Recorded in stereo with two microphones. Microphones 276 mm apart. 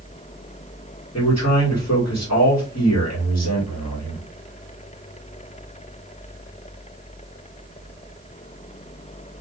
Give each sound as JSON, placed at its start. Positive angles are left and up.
{"t": 1.1, "sound": "a man speaking", "side_deg": 70, "distance_m": 1.6}